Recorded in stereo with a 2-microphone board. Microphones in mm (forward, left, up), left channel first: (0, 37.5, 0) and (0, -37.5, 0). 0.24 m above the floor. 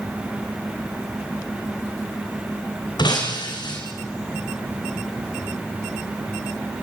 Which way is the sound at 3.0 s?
75° left (ahead or behind).